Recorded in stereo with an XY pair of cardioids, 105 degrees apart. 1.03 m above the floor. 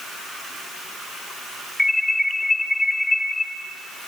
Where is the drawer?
No drawer in this recording.